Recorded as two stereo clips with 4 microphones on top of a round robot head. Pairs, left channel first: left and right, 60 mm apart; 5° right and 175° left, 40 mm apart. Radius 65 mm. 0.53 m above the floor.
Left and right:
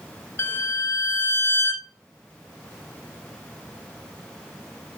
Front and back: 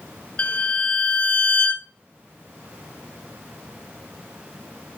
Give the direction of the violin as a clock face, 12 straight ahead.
10 o'clock.